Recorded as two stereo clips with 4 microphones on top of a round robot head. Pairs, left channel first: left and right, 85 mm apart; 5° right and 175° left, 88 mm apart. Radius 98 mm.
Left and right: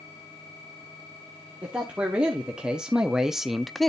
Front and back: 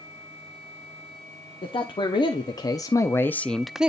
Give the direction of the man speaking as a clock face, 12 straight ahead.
12 o'clock.